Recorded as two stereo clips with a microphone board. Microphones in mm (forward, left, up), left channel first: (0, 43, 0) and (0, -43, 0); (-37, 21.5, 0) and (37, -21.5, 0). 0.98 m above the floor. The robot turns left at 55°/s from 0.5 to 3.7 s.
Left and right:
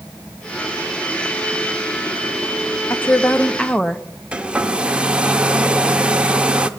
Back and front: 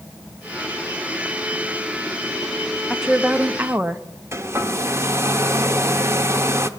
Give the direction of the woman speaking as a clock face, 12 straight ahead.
10 o'clock.